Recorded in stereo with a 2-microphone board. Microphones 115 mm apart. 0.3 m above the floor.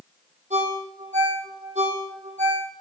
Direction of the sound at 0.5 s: 75° right (ahead or behind).